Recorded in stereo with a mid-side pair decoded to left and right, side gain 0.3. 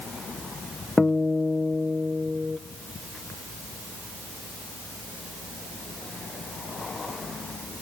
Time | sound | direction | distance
1.0 | a guitar | 30° left | 0.7 m